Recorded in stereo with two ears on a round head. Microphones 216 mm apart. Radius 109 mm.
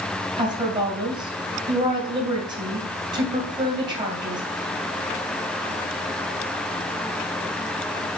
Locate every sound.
0.4 s a woman speaking: 20° right (ahead or behind), 2.5 m